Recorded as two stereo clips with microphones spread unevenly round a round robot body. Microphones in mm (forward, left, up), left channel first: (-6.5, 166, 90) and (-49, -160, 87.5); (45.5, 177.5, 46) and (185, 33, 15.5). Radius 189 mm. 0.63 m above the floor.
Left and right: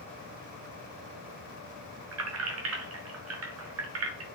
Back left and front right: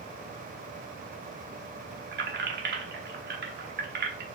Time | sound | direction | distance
2.1 | keys jangling | 60° right | 1.0 m